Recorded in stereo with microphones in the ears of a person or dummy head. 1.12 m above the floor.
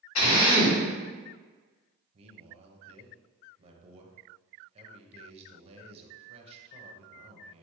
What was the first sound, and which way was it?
A drill, 80° left.